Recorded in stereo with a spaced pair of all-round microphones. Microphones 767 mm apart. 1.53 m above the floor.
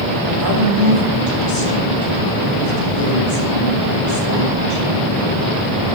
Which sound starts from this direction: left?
A woman speaking, at 0.3 s.